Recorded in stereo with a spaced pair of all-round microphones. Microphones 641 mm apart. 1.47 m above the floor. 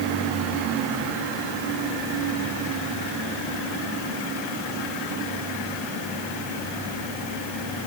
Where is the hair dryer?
I don't hear a hair dryer.